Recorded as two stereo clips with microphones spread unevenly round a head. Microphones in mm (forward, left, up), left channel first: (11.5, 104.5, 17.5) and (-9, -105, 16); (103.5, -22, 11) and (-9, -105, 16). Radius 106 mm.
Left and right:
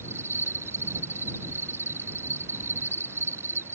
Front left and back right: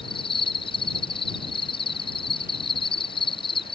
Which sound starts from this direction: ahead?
An insect, at 0.0 s.